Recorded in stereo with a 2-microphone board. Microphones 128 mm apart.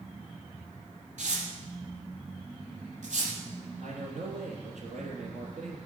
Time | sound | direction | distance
1.2 | tearing paper | 70° right (ahead or behind) | 5 m
3.8 | a man speaking | 70° right (ahead or behind) | 4 m